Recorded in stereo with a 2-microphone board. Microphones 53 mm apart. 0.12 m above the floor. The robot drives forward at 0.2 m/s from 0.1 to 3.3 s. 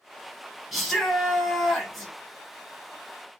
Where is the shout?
Centre (ahead or behind), 1.3 m.